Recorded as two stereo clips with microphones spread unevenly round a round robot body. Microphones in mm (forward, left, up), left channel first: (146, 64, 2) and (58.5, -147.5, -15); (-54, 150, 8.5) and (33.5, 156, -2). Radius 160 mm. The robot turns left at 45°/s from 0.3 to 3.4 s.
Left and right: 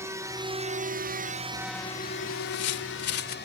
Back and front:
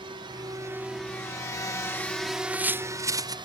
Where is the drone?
35° right; by 3.5 s 25° left.